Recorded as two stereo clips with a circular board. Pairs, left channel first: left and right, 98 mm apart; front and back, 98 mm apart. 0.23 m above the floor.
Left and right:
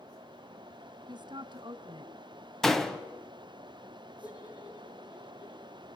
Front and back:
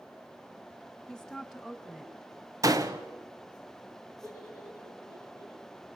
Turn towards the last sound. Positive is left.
turn(degrees=125)